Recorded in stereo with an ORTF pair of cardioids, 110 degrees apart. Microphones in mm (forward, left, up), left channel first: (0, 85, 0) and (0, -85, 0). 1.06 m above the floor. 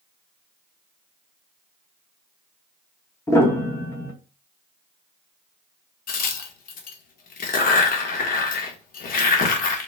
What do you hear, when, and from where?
3.3 s a piano: 15° left, 1.1 m
6.1 s a crack: 55° left, 1.0 m